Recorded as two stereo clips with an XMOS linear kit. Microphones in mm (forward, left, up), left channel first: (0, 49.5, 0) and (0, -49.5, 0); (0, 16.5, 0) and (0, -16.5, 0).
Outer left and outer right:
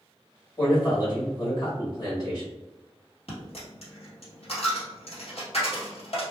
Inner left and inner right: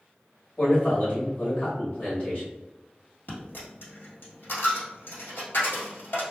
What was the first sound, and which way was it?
A man speaking, 40° left (ahead or behind).